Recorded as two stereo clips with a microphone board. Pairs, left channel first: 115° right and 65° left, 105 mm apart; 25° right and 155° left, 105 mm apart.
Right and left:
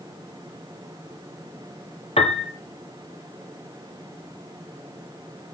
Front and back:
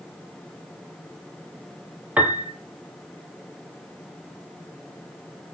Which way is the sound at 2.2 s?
125° right.